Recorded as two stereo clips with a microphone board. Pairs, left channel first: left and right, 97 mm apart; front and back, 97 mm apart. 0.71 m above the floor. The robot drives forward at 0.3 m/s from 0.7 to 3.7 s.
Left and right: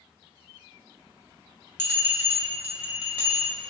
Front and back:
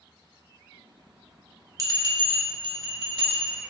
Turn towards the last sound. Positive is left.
turn(degrees=-165)